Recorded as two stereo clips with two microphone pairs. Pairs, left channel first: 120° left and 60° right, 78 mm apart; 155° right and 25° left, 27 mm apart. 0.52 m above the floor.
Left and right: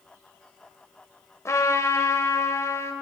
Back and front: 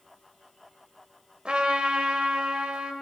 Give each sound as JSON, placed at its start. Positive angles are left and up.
{"t": 1.4, "sound": "a trumpet", "azimuth_deg": 70, "distance_m": 1.3}